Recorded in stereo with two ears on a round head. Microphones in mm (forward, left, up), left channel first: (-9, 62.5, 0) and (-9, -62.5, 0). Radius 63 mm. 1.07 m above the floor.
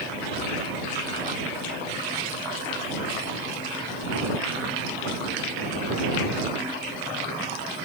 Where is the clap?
I don't hear a clap.